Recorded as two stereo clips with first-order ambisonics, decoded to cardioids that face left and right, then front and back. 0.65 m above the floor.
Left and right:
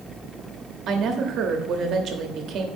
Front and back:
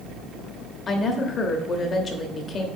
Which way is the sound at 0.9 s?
55° right.